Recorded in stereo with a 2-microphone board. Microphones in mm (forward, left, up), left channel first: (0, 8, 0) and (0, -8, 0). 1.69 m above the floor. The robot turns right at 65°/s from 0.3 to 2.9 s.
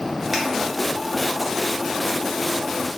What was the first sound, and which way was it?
A finger snap, 15° right (ahead or behind).